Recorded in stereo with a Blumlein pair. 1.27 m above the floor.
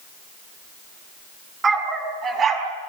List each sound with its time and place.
1.6 s a dog barking: 15° right, 4.5 m; by 2.7 s 25° right, 4 m